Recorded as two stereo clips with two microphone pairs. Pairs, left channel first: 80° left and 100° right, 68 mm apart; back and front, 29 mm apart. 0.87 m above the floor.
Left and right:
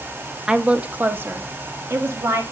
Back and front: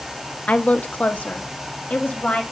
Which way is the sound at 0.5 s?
Straight behind.